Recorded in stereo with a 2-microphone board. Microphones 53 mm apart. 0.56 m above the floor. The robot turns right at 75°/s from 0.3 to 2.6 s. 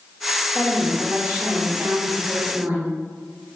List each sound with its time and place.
0.6 s a woman speaking: 175° left, 1.3 m; by 2.9 s 30° right, 1.3 m